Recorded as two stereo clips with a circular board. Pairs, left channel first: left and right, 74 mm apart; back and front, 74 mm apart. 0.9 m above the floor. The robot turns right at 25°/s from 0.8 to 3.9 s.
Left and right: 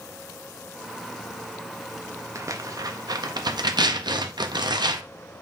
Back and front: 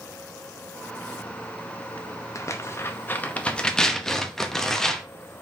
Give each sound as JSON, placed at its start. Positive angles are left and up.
{"t": 2.4, "sound": "tearing paper", "azimuth_deg": -135, "distance_m": 0.5}